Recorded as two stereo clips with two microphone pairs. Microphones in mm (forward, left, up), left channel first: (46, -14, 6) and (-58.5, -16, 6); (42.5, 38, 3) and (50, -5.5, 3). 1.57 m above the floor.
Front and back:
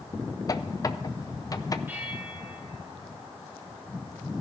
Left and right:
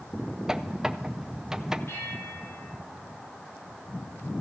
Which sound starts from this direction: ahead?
A squeak, at 0.5 s.